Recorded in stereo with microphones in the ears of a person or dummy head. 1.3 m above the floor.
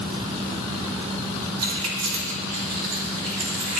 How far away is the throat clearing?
No throat clearing in this recording.